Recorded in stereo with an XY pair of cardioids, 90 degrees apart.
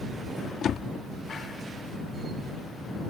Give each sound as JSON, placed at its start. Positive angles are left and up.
{"t": 0.6, "sound": "a door slam", "azimuth_deg": 65}